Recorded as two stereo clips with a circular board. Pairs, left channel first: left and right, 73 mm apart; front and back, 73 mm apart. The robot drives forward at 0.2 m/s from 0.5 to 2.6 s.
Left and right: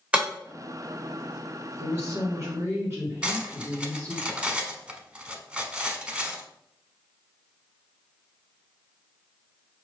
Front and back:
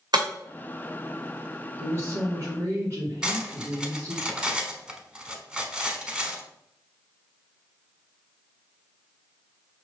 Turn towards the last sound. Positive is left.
turn(degrees=-130)